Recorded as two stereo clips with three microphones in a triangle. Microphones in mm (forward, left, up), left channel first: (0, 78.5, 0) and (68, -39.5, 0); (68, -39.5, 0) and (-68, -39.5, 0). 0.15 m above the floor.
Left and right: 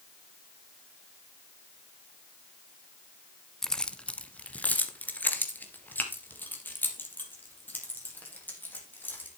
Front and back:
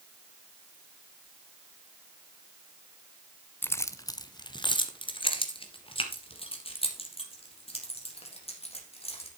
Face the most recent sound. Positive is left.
turn(degrees=45)